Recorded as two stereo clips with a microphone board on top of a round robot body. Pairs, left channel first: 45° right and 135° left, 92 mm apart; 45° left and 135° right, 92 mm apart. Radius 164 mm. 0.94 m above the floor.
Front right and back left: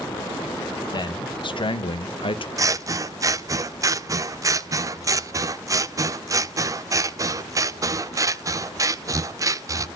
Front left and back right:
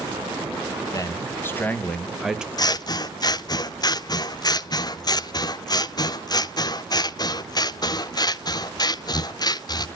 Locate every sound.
0.9 s a man speaking: 10° right, 1.3 m; by 2.5 s 55° right, 1.0 m
2.6 s scissors: 85° left, 0.6 m